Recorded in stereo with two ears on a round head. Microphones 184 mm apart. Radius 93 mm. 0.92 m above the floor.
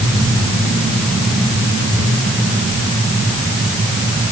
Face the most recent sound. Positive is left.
No sound to turn to.